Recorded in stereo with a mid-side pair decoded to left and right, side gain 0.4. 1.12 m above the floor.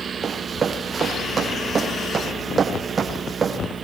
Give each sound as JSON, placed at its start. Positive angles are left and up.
{"t": 0.2, "sound": "running footsteps", "azimuth_deg": -45, "distance_m": 3.5}